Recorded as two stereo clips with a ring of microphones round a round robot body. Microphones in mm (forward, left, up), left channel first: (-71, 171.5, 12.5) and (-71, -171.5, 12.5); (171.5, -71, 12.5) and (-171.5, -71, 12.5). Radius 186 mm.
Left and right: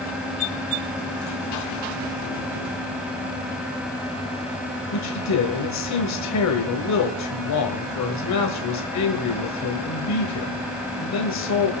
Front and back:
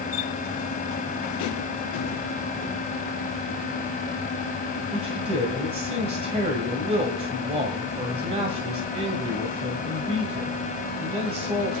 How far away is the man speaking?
About 1.7 m.